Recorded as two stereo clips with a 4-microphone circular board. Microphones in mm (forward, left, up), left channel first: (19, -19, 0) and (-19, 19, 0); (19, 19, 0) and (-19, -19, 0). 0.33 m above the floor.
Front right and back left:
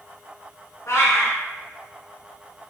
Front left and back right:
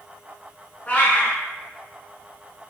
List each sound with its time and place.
0.9 s a cat meowing: 20° right, 0.7 m